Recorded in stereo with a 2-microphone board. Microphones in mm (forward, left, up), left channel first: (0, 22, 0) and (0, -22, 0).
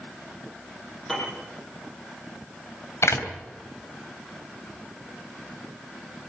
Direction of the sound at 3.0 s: 80° left.